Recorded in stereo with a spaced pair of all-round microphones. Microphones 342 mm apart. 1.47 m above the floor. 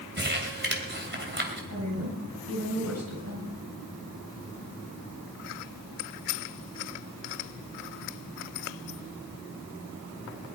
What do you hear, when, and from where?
0.2 s crumpling: 30° right (ahead or behind), 3 m
1.7 s a woman speaking: 50° right (ahead or behind), 8.5 m